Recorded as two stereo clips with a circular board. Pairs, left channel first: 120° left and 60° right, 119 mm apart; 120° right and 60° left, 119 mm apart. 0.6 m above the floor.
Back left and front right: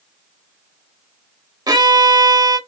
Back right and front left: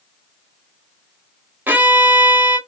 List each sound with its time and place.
1.7 s a violin: 10° right, 0.6 m